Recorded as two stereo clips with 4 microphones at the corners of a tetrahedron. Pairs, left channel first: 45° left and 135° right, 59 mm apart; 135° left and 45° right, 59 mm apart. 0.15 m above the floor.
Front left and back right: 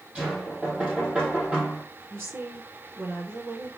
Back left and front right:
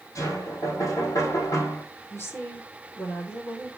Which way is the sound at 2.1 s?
Straight behind.